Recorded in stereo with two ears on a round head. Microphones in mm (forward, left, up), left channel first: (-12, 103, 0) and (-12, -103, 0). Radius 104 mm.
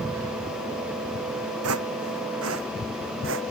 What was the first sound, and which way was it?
Footsteps, 70° right (ahead or behind).